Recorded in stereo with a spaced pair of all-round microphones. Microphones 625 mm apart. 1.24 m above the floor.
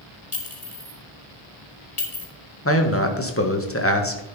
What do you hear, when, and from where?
0.3 s a clink: 75° left (ahead or behind), 2.5 m
2.6 s a man speaking: 20° left (ahead or behind), 1.4 m